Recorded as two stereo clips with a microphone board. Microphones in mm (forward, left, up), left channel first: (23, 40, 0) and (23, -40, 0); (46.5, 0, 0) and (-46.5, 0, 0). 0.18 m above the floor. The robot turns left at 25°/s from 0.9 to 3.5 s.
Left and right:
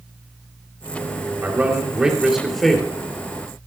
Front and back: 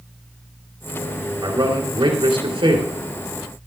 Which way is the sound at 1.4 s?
155° right.